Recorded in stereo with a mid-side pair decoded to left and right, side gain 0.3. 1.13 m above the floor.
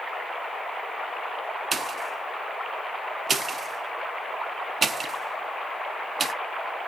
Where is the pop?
60° right, 0.6 m.